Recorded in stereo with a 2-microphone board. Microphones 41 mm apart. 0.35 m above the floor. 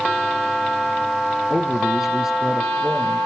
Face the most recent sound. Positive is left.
turn(degrees=-15)  # may be behind; listen again after turning